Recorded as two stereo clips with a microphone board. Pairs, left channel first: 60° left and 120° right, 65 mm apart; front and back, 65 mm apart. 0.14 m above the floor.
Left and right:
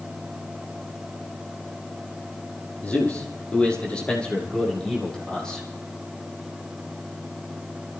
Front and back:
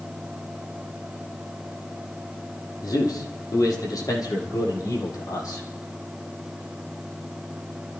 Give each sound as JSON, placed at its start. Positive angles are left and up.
{"t": 2.8, "sound": "a man speaking", "azimuth_deg": -5, "distance_m": 5.5}